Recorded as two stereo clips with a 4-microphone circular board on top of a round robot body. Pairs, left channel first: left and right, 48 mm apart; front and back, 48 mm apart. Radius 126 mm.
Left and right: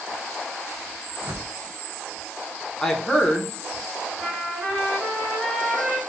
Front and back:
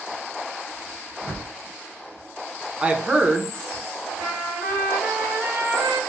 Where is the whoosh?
75° right, 1.0 m.